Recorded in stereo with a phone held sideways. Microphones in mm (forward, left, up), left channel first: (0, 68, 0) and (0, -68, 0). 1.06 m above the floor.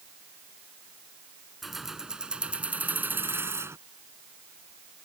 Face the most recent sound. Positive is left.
turn(degrees=-20)  # may be behind; listen again after turning